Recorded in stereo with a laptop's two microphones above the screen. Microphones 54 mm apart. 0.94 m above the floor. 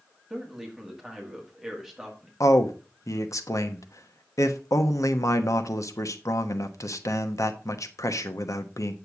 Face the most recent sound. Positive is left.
turn(degrees=70)  # may be behind; listen again after turning